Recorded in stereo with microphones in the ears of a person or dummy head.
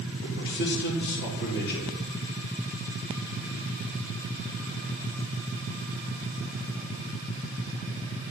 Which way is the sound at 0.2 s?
55° left (ahead or behind).